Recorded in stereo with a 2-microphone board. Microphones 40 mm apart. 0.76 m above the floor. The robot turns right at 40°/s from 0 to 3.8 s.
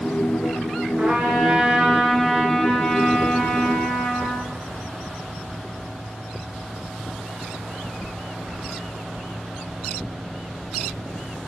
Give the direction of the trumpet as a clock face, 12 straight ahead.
2 o'clock.